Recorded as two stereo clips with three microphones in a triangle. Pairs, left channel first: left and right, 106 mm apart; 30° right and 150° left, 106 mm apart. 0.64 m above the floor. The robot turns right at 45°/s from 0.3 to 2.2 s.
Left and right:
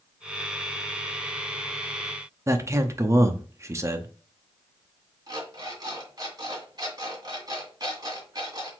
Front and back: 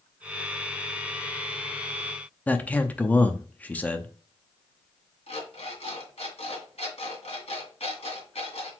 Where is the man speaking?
90° right, 0.6 m.